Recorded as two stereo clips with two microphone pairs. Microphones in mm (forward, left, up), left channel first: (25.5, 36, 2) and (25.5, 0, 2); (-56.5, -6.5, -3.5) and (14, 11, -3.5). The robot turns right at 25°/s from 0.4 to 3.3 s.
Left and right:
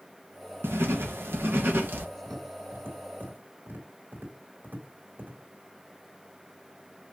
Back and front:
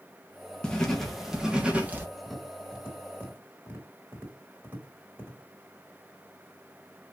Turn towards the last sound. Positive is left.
turn(degrees=-50)